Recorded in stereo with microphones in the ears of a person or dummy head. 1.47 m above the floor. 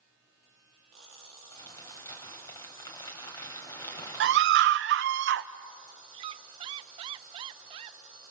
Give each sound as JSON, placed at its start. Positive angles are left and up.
{"t": 1.5, "sound": "crumpling", "side_deg": 20, "distance_m": 4.0}
{"t": 4.2, "sound": "a scream", "side_deg": -60, "distance_m": 1.1}
{"t": 6.1, "sound": "a squeak", "side_deg": -30, "distance_m": 0.8}